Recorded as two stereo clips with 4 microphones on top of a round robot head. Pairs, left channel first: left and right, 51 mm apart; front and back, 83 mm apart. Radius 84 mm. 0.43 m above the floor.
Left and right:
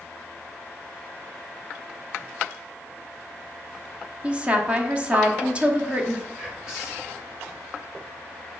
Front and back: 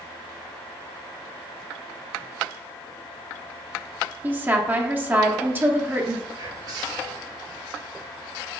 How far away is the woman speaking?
About 0.9 m.